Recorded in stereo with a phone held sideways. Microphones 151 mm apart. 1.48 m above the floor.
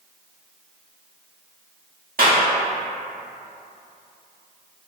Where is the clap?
75° right (ahead or behind), 1.6 m.